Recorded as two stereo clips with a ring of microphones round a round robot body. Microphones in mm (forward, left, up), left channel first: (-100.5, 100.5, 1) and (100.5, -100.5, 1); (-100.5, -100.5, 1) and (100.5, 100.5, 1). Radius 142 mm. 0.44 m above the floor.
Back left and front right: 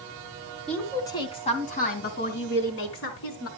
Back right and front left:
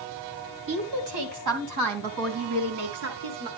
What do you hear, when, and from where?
0.7 s a woman speaking: 50° left, 2.5 m; by 3.5 s 90° left, 4 m